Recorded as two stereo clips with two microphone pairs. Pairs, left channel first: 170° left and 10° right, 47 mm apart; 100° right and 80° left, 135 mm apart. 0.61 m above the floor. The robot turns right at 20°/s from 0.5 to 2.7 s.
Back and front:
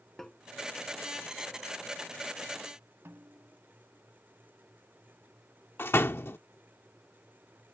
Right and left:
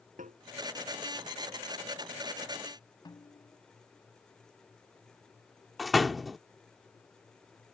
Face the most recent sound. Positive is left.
turn(degrees=170)